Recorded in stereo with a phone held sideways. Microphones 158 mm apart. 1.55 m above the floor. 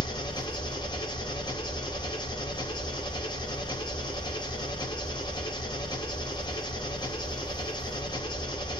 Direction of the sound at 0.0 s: 30° left (ahead or behind).